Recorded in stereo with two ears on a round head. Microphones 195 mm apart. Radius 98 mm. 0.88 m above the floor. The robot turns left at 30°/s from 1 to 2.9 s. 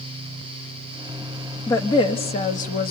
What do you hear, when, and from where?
1.7 s a woman speaking: 165° left, 1.4 m; by 2.9 s 130° left, 1.4 m